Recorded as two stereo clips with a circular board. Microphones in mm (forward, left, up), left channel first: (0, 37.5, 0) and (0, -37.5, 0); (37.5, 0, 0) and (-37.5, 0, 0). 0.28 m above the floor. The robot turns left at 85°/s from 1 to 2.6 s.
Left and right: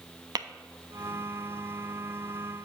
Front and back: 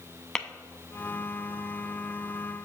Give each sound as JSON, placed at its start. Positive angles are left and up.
{"t": 0.3, "sound": "tapping", "azimuth_deg": -80, "distance_m": 0.6}